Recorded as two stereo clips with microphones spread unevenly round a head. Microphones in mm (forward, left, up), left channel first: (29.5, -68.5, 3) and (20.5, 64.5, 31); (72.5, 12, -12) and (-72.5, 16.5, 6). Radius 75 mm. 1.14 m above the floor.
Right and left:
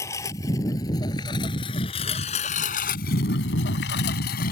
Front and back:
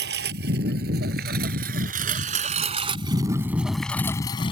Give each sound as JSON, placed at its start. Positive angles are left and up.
{"t": 0.0, "sound": "a lawn mower", "azimuth_deg": -160}